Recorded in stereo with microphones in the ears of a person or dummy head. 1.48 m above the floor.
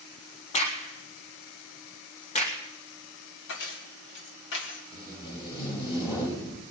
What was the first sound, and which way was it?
A crack, 35° left (ahead or behind).